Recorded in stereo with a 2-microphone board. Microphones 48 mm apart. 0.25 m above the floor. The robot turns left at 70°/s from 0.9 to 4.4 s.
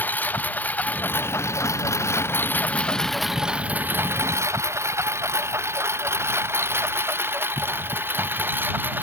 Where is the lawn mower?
40° left (ahead or behind); by 9.0 s 45° right (ahead or behind).